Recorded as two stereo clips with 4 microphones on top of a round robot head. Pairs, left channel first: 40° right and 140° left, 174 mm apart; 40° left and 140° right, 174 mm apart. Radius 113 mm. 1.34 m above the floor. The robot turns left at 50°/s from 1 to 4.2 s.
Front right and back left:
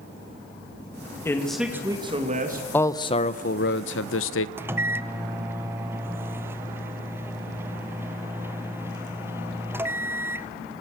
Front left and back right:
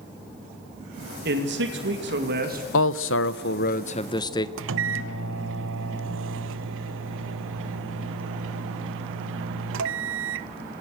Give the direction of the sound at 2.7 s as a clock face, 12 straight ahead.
11 o'clock.